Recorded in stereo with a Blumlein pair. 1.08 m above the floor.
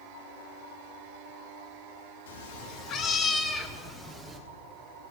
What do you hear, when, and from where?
2.3 s a cat meowing: 60° left, 0.9 m; by 4.4 s 10° right, 1.4 m